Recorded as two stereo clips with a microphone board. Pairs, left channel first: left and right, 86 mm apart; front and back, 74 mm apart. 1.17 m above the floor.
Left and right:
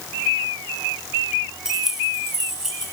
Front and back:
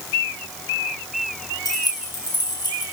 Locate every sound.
1.6 s keys jangling: 5° right, 4.5 m